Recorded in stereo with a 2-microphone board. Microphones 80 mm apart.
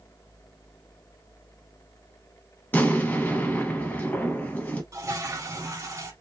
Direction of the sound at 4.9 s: 35° right (ahead or behind).